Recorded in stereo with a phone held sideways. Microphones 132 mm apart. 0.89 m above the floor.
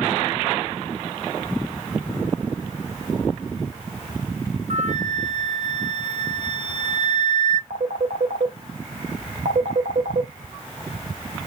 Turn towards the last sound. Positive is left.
turn(degrees=-75)  # may be behind; listen again after turning